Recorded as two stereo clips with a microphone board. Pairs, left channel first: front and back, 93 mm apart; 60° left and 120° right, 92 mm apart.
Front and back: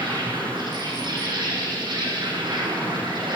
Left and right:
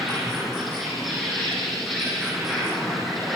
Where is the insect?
150° left, 10 m.